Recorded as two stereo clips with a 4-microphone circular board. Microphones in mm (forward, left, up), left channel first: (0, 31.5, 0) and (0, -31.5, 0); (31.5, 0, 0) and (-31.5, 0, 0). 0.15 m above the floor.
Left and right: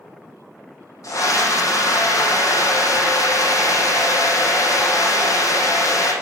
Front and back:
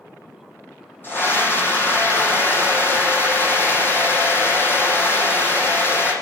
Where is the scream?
60° left, 5.5 m.